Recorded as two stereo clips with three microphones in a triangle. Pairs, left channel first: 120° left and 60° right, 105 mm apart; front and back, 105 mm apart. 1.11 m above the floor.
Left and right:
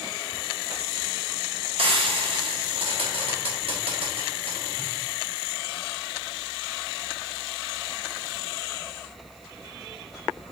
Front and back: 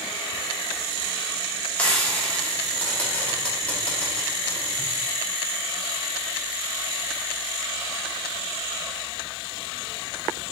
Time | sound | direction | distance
1.8 | frying | 75° right | 1.0 m